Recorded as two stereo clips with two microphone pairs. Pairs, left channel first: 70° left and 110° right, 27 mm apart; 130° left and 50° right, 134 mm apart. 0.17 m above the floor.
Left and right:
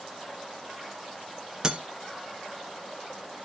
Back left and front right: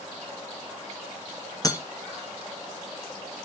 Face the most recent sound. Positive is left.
turn(degrees=-170)